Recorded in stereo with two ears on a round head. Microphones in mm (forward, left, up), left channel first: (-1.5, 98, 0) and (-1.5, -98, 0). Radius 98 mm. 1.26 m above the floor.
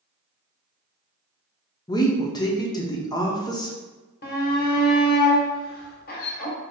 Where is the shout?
45° left (ahead or behind), 1.1 m.